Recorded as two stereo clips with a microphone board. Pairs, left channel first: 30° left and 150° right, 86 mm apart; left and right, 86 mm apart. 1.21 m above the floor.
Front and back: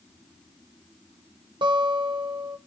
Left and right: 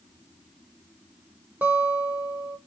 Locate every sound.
1.6 s a guitar: 160° right, 0.7 m